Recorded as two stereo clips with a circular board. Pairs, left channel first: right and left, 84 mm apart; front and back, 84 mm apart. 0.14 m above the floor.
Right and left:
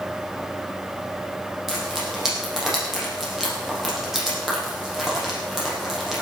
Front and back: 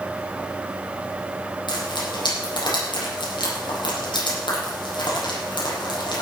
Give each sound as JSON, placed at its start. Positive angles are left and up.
{"t": 1.7, "sound": "frying", "azimuth_deg": 5, "distance_m": 6.0}